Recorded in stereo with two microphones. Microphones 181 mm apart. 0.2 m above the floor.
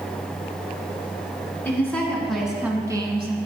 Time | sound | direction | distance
1.6 | a woman speaking | 10° left (ahead or behind) | 2 m